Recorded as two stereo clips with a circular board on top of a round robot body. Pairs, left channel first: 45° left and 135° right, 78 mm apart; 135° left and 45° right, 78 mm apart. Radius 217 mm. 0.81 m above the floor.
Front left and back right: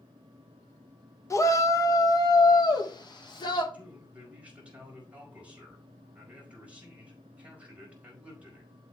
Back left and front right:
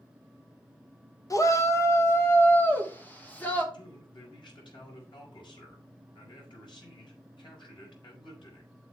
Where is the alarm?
No alarm in this recording.